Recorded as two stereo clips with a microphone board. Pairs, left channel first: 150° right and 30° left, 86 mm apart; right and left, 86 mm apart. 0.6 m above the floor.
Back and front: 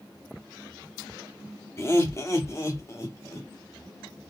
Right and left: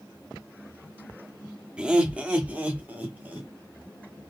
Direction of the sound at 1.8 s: 165° left.